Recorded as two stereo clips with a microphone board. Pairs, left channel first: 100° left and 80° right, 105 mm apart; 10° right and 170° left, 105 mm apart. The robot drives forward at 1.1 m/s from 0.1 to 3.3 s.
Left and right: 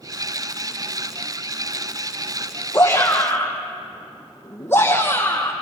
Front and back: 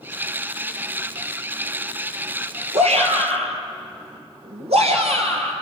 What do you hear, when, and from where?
2.7 s a shout: 170° left, 5 m